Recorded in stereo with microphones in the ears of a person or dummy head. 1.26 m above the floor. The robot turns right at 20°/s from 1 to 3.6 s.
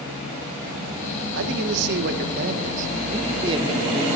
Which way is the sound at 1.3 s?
75° right.